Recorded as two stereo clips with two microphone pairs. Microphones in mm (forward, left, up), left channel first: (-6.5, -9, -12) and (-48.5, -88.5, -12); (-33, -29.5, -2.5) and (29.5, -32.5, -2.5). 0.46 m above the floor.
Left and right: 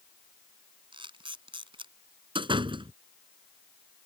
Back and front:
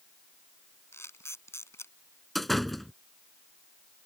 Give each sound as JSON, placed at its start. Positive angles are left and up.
{"t": 0.9, "sound": "a camera shutter", "azimuth_deg": -140}
{"t": 2.4, "sound": "a door slam", "azimuth_deg": -95}